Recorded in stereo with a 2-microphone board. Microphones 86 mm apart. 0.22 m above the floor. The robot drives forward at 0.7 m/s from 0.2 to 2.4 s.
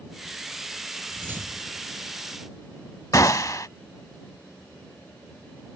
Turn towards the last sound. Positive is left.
turn(degrees=40)  # may be behind; listen again after turning